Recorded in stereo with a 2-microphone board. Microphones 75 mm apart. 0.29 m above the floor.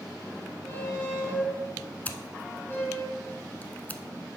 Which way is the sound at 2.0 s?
25° left (ahead or behind).